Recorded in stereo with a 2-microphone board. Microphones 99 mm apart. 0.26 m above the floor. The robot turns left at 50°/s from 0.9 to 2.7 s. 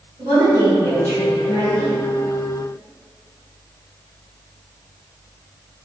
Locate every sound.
0.2 s a woman speaking: 65° right, 1.4 m; by 2.0 s 120° right, 1.4 m